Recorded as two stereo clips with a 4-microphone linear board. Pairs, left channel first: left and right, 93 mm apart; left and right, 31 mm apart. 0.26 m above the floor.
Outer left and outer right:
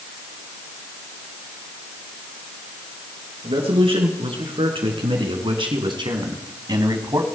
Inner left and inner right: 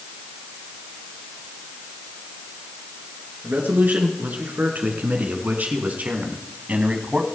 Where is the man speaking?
70° right (ahead or behind), 4 m; by 7.2 s 40° right (ahead or behind), 1.9 m.